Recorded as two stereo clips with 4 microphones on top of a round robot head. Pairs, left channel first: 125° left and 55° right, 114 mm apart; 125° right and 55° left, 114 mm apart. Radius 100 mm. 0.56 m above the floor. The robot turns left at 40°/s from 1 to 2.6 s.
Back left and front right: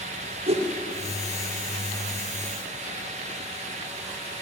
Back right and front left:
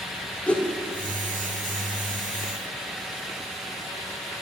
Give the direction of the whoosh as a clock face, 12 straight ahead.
2 o'clock.